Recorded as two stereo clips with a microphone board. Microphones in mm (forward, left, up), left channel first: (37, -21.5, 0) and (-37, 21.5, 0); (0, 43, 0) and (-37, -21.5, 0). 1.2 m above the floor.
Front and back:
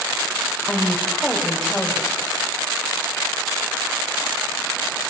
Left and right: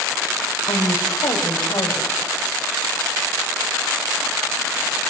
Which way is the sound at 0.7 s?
55° left.